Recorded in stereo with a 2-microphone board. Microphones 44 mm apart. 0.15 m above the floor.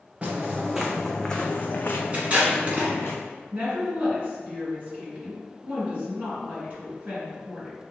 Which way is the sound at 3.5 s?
35° right (ahead or behind).